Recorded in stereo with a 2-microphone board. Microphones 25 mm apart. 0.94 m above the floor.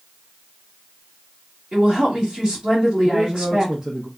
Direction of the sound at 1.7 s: 25° right (ahead or behind).